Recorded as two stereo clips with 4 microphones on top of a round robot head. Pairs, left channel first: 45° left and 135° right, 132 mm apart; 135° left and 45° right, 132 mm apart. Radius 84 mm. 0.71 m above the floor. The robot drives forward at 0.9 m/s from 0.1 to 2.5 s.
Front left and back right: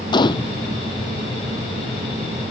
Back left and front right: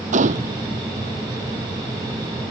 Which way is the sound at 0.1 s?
15° right.